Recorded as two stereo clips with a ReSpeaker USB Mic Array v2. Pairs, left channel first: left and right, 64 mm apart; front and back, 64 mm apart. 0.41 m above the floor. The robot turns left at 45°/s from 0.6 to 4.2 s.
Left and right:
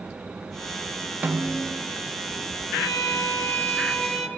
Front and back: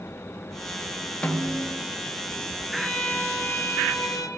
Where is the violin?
75° left, 1.6 m; by 4.3 s 10° left, 1.6 m.